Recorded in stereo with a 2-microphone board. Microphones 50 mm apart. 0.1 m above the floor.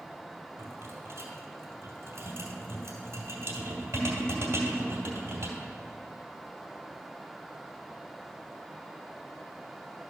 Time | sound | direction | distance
0.6 | a rattle | 60° right (ahead or behind) | 2 m